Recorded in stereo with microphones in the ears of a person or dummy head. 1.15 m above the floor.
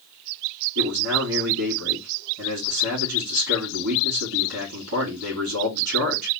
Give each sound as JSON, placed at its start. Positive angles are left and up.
{"t": 0.8, "sound": "a man speaking", "side_deg": -65, "distance_m": 2.5}